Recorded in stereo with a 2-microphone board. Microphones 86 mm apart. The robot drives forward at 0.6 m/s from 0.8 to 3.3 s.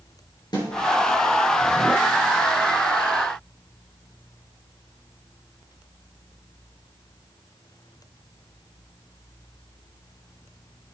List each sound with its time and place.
0.5 s a snare drum: 55° left (ahead or behind), 6 m